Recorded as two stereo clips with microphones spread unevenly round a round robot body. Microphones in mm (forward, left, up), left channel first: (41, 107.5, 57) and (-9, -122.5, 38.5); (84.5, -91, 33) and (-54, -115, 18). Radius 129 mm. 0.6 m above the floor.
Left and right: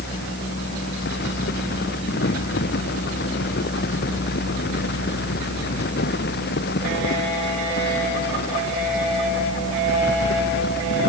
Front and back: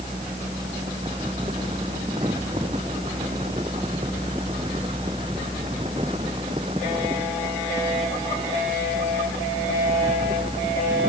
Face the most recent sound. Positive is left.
No sound to turn to.